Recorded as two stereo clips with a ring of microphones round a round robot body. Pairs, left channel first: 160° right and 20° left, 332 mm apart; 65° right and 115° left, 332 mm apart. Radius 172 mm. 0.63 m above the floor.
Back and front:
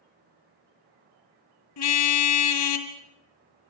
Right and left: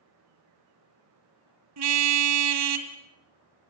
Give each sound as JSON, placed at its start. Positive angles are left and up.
{"t": 1.8, "sound": "a car horn", "azimuth_deg": 160, "distance_m": 2.0}